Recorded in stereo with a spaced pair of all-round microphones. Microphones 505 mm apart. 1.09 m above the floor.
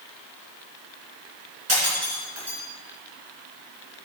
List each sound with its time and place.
1.7 s breaking glass: 75° right (ahead or behind), 5 m